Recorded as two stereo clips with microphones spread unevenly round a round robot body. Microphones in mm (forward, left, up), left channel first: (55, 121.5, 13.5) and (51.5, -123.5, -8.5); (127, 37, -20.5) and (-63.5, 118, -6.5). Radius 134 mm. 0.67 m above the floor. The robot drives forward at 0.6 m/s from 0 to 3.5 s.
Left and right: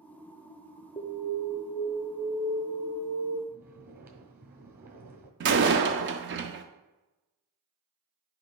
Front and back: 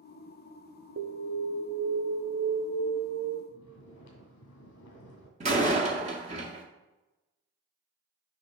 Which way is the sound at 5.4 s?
135° right.